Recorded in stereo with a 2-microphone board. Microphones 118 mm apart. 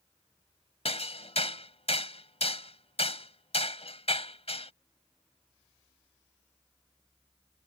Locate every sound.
0.8 s hammering: 60° left (ahead or behind)